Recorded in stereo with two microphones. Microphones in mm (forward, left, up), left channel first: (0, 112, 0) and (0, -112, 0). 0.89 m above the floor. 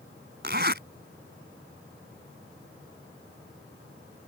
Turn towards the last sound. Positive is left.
turn(degrees=-50)  # may be behind; listen again after turning